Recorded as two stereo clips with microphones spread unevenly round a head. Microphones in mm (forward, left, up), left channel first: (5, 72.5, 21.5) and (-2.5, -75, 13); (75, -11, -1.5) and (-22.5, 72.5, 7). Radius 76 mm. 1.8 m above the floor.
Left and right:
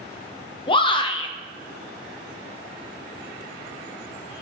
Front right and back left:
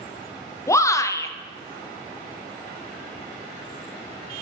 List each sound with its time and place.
0.7 s a shout: 30° left, 0.9 m